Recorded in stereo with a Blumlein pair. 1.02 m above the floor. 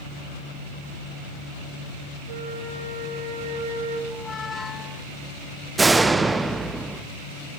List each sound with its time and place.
2.3 s a flute: 55° right, 3.5 m
4.1 s a squeak: 15° left, 0.5 m
5.8 s a door slam: 10° right, 0.8 m